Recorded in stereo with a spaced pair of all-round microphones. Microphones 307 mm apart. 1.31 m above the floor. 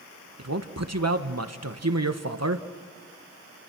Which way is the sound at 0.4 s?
55° right (ahead or behind).